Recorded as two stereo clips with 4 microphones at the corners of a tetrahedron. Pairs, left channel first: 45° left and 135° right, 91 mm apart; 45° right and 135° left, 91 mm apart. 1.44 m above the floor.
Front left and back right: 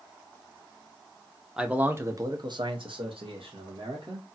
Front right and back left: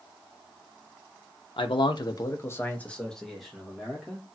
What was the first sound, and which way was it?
A man speaking, 55° right.